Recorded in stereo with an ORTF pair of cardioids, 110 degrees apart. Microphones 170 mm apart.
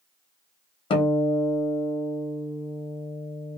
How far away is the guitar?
About 0.9 m.